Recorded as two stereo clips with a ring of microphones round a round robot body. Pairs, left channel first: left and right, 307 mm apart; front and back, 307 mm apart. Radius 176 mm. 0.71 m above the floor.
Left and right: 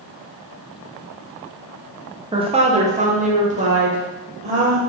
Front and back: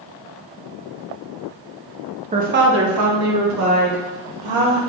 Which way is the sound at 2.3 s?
145° right.